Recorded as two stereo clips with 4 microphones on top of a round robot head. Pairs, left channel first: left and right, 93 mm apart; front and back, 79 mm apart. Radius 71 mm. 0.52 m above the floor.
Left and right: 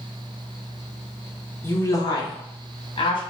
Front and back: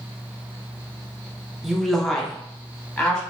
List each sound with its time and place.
1.6 s a woman speaking: 95° left, 0.7 m; by 3.2 s 80° left, 1.5 m